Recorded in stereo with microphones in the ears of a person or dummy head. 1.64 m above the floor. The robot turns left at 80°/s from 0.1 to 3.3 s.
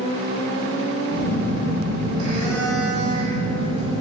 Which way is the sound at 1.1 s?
60° left.